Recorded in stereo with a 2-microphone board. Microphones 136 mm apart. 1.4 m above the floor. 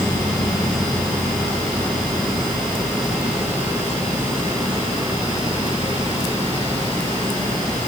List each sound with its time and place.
Only background noise.